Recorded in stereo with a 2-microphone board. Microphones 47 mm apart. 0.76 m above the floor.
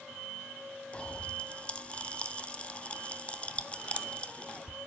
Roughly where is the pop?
Left.